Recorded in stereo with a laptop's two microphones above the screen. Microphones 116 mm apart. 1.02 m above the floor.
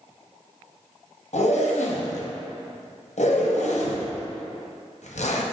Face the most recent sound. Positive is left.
turn(degrees=65)  # may be behind; listen again after turning